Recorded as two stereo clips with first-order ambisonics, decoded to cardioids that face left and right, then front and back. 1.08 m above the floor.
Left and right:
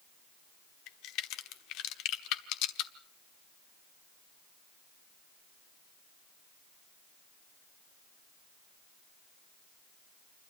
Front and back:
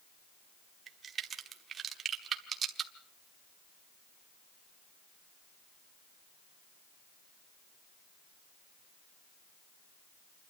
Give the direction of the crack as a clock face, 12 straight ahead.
8 o'clock.